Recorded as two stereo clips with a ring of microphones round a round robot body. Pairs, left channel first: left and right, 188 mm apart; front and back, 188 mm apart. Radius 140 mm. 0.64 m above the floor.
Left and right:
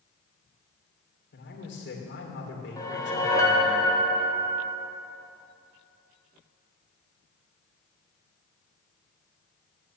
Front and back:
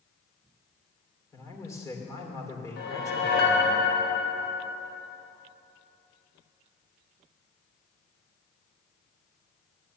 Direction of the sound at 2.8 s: 20° left.